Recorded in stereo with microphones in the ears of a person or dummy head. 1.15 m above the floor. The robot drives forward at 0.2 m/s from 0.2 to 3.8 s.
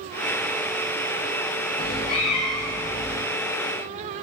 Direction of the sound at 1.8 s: 25° left (ahead or behind).